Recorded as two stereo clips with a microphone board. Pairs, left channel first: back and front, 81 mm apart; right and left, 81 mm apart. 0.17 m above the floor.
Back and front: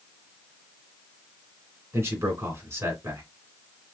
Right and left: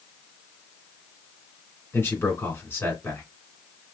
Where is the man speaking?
40° right, 2 m.